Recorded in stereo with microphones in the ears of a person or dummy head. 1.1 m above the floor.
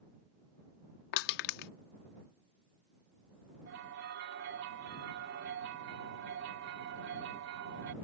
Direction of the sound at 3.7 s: 65° right (ahead or behind).